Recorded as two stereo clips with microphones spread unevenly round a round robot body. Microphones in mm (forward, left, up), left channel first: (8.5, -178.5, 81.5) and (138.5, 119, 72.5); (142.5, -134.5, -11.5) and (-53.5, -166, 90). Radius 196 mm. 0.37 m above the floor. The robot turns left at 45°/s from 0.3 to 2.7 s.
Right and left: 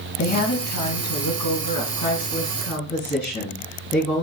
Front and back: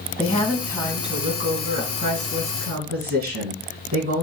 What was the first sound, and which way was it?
A woman speaking, 70° right.